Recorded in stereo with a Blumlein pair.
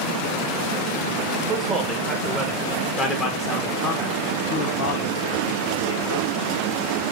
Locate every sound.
1.5 s a man speaking: 15° right, 2 m; by 6.3 s 70° left, 1.9 m